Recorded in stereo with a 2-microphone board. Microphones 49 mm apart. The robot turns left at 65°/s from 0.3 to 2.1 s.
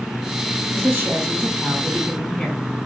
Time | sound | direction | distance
0.7 | a woman speaking | 100° right | 2.5 m